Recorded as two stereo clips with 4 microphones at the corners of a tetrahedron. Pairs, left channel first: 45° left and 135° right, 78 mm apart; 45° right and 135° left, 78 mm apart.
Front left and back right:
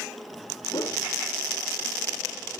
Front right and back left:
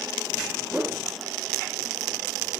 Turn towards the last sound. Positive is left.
turn(degrees=55)